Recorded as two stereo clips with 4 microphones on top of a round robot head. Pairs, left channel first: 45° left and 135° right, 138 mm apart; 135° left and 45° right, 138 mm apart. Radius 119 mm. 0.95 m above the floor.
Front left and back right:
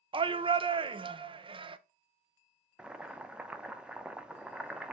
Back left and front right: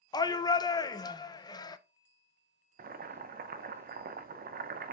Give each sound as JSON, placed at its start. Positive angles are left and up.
{"t": 0.1, "sound": "a shout", "azimuth_deg": -175, "distance_m": 0.5}
{"t": 2.8, "sound": "boiling", "azimuth_deg": -50, "distance_m": 0.5}